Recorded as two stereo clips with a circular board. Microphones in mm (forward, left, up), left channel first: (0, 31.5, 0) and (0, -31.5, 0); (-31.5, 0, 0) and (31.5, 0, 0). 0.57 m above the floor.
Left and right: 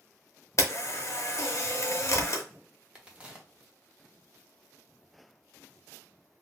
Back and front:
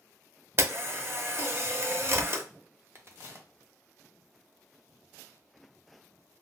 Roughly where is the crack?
Ahead right.